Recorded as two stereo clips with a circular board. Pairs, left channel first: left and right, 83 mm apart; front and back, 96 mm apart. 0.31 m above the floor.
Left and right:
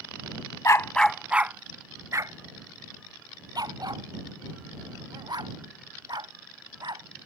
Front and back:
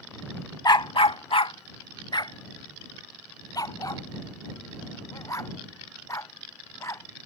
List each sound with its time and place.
0.7 s a dog barking: 40° left; by 7.1 s 60° right